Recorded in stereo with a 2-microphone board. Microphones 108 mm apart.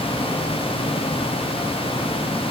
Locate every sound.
Only background noise.